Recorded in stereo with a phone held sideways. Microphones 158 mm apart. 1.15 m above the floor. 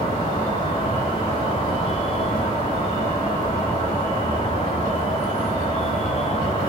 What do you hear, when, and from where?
0.0 s an insect: 35° left (ahead or behind), 0.9 m